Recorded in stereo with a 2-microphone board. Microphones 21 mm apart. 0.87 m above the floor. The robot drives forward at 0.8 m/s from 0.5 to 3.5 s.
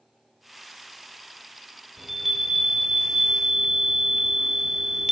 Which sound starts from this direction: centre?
A chime, at 2.0 s.